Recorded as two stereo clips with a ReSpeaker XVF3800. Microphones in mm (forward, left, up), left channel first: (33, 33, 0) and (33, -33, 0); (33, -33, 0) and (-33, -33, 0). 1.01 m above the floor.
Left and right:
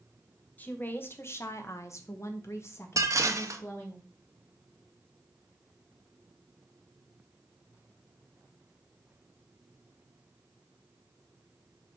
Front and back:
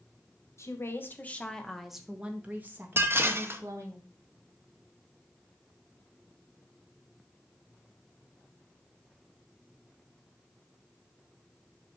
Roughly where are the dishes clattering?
Behind right.